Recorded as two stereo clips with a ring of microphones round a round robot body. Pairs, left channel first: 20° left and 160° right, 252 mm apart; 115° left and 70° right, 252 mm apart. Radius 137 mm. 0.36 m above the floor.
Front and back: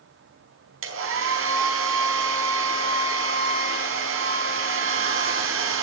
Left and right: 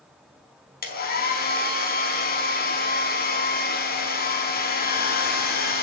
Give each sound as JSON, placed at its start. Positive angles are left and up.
{"t": 0.8, "sound": "a hair dryer", "azimuth_deg": 165, "distance_m": 4.5}